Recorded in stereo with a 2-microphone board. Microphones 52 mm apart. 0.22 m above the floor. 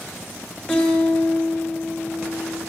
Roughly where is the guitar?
Centre.